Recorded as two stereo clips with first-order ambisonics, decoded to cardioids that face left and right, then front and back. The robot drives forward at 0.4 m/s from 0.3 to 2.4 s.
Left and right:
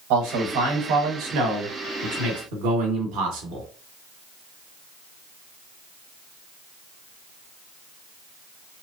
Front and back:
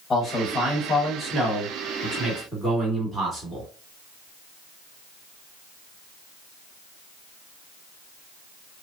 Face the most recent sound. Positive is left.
turn(degrees=-100)